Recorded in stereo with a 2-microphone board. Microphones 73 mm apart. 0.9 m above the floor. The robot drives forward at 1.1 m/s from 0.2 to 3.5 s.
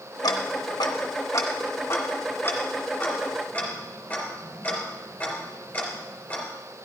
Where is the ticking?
60° left (ahead or behind), 1.2 m; by 6.5 s 20° left (ahead or behind), 3.5 m.